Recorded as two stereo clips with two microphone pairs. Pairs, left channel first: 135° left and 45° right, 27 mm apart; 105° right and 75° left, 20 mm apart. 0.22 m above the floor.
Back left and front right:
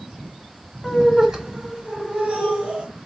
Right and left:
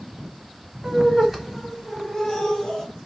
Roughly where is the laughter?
Ahead left.